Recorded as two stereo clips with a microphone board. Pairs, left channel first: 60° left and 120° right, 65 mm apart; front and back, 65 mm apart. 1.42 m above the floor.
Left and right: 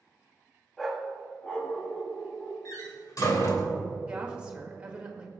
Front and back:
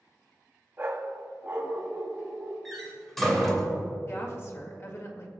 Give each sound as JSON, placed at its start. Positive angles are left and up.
{"t": 0.8, "sound": "a dog barking", "azimuth_deg": 145, "distance_m": 0.9}
{"t": 2.6, "sound": "a door slam", "azimuth_deg": 85, "distance_m": 2.5}
{"t": 4.1, "sound": "a woman speaking", "azimuth_deg": -50, "distance_m": 2.0}